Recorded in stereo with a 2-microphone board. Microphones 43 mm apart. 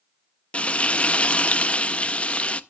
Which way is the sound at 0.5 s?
30° left (ahead or behind).